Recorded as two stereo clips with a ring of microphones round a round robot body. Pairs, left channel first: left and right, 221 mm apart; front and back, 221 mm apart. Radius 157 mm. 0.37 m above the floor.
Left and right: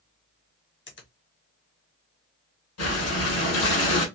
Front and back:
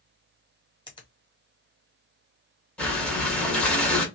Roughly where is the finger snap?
Left.